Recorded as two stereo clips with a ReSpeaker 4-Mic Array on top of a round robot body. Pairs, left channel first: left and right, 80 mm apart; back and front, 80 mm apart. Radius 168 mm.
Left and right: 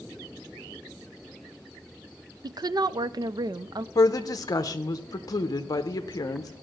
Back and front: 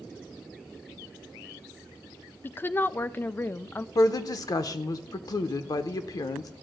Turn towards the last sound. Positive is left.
turn(degrees=135)